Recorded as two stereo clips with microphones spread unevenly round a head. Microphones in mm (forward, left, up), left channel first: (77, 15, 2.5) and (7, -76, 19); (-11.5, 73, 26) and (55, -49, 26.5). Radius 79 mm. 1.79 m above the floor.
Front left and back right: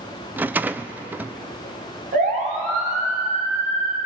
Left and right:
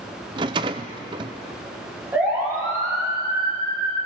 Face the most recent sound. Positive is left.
turn(degrees=-120)